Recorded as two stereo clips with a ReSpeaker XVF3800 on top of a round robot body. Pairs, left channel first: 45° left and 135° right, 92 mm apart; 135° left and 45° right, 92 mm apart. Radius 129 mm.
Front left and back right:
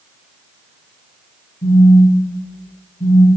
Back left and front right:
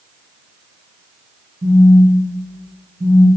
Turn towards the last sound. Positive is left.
turn(degrees=15)